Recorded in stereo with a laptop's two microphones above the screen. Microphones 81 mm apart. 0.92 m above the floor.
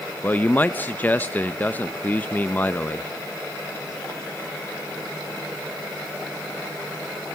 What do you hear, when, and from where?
0.2 s a man speaking: 20° left (ahead or behind), 0.6 m